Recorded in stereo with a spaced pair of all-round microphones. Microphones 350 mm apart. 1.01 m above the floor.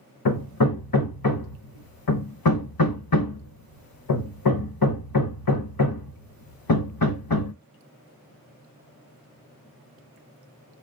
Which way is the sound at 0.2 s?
80° left.